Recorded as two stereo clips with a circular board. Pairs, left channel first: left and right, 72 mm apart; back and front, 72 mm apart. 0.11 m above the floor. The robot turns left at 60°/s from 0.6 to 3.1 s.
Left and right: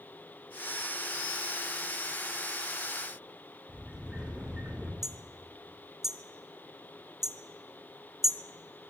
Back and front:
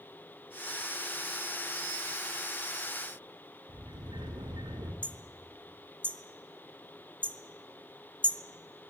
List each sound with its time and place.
3.7 s a sliding door: 10° right, 5 m
5.0 s hammering: 15° right, 1.0 m